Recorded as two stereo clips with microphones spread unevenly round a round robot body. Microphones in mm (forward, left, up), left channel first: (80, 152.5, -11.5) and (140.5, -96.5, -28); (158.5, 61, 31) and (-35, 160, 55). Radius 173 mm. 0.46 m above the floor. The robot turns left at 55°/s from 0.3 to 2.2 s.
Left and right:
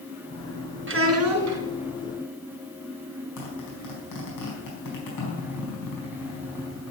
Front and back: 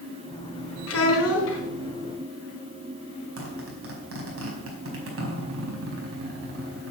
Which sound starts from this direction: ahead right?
A child speaking, at 0.9 s.